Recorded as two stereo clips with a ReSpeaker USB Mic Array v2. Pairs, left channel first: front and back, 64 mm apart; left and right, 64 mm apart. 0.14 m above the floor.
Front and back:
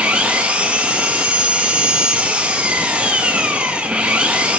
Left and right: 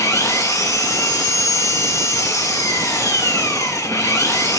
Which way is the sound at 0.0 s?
115° left.